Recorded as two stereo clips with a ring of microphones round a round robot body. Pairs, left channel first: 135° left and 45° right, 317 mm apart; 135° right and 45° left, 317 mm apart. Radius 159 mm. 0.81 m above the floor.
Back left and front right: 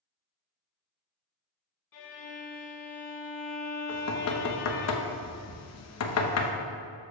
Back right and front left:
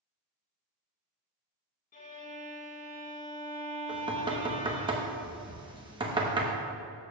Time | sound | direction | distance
1.9 | a violin | 160° left | 1.3 m
3.9 | knocking | 115° left | 0.9 m